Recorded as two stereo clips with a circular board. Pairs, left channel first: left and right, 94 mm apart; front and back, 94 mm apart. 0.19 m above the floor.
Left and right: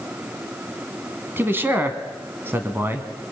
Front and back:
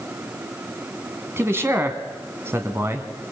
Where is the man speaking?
140° right, 1.8 m.